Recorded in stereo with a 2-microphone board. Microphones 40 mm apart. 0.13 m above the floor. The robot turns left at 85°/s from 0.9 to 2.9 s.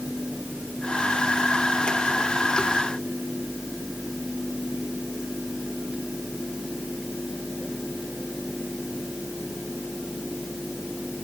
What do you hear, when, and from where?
Only background noise.